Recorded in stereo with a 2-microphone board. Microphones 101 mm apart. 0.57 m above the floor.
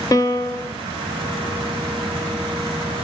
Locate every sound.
0.1 s a piano: 35° left (ahead or behind), 1.0 m